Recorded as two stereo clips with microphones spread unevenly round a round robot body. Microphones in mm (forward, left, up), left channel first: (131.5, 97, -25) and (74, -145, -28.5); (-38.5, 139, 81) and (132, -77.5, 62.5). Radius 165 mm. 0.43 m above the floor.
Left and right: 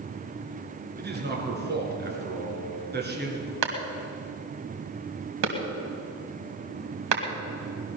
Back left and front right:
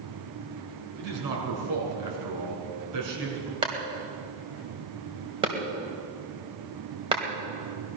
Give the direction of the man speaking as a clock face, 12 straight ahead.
2 o'clock.